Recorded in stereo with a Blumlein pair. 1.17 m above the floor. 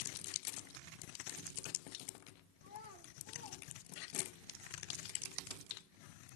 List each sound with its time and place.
2.6 s a child speaking: 60° left, 7.5 m; by 4.4 s 40° left, 7 m